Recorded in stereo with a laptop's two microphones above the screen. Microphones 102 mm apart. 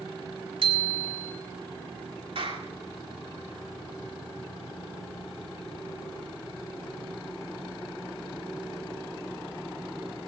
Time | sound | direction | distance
0.6 | a bicycle bell | 65° right (ahead or behind) | 2.5 m
2.4 | a clap | 65° right (ahead or behind) | 2.5 m